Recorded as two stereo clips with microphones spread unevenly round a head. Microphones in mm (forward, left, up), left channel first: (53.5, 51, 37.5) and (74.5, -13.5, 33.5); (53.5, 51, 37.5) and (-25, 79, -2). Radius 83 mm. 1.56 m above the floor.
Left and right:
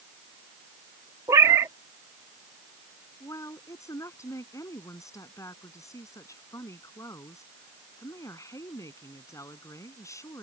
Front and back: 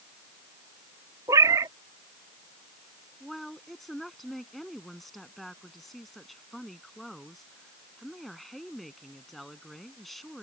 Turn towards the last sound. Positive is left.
turn(degrees=65)